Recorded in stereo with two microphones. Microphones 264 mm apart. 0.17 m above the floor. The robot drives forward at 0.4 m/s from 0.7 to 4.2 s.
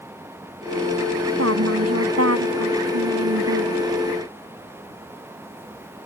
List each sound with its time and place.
1.4 s a woman speaking: 65° right (ahead or behind); by 3.9 s 70° right (ahead or behind)